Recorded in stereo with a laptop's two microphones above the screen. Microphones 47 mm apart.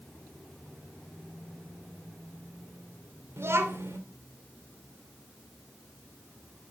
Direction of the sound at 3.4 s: 65° right (ahead or behind).